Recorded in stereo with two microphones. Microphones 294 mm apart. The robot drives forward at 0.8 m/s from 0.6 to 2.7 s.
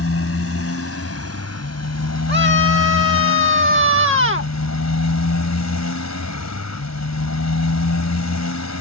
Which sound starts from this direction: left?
A motorcycle, at 0.0 s.